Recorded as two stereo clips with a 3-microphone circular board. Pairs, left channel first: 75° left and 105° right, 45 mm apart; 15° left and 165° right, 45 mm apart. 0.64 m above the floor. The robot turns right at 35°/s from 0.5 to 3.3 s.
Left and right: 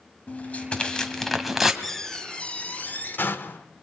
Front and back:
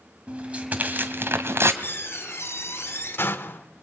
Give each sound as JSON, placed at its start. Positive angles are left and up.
{"t": 0.3, "sound": "tearing paper", "azimuth_deg": 135, "distance_m": 1.8}
{"t": 1.8, "sound": "a door slam", "azimuth_deg": -10, "distance_m": 1.7}